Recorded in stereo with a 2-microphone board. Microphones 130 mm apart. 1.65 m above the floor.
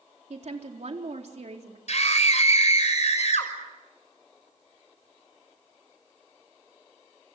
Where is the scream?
60° left (ahead or behind), 6 m.